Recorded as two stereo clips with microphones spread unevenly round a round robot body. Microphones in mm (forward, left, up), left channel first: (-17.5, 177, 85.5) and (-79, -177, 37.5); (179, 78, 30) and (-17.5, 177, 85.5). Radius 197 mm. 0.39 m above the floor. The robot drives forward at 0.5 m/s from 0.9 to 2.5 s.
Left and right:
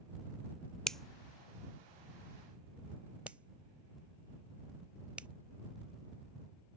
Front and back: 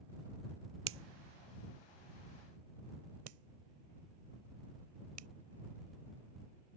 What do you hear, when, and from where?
0.9 s a finger snap: 175° left